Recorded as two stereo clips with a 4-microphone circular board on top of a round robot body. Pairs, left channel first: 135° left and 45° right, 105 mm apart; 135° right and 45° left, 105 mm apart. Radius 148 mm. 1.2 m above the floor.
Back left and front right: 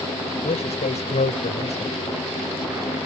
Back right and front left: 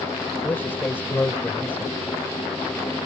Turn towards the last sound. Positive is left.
turn(degrees=150)